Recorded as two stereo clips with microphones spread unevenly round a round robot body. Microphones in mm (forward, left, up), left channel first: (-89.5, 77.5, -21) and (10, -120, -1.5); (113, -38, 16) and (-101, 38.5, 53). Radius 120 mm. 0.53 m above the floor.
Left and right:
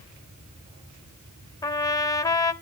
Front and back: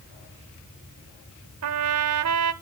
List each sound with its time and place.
1.6 s a trumpet: 165° right, 0.9 m